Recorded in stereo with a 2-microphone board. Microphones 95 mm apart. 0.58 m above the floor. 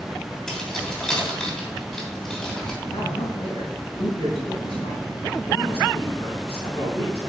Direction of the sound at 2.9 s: 75° left (ahead or behind).